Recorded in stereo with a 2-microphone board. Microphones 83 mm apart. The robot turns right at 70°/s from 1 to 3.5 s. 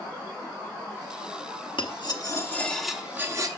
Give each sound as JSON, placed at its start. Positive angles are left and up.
{"t": 1.8, "sound": "cutlery clinking", "azimuth_deg": 105, "distance_m": 0.9}